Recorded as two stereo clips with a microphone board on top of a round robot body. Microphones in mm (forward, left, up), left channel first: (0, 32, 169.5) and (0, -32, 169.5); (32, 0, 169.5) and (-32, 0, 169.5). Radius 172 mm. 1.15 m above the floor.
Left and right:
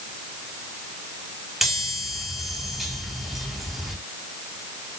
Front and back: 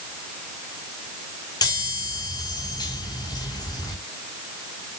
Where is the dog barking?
No dog barking in this recording.